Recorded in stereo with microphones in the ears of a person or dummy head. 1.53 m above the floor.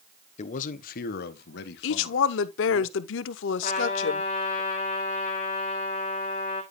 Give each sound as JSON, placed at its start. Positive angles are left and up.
{"t": 0.4, "sound": "a man speaking", "side_deg": 40, "distance_m": 1.1}
{"t": 1.8, "sound": "a woman speaking", "side_deg": 75, "distance_m": 0.9}
{"t": 3.6, "sound": "a trumpet", "side_deg": 35, "distance_m": 1.5}